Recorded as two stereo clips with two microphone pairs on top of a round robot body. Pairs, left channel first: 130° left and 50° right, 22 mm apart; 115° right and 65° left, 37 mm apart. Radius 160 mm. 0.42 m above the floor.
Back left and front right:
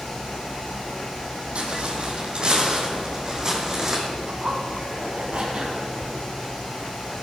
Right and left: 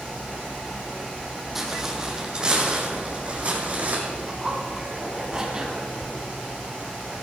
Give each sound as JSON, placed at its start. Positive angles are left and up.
{"t": 1.6, "sound": "footsteps", "azimuth_deg": -15, "distance_m": 1.7}
{"t": 4.3, "sound": "a zipper", "azimuth_deg": -5, "distance_m": 2.0}